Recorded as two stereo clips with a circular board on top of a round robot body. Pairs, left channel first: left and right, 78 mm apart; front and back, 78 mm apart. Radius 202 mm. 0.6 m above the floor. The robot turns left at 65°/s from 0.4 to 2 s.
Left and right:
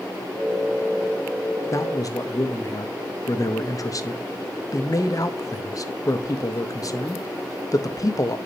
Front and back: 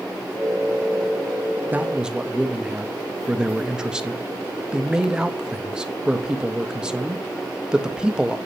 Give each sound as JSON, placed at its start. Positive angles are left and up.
{"t": 1.7, "sound": "a man speaking", "azimuth_deg": 120, "distance_m": 0.8}